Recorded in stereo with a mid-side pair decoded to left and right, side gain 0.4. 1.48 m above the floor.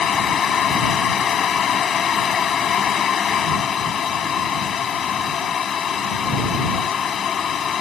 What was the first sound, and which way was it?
A fan, 55° left.